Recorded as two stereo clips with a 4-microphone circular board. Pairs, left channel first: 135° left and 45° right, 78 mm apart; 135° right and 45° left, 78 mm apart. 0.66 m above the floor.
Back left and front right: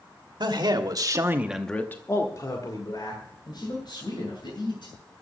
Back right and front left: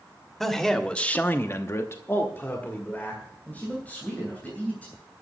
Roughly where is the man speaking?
Ahead right.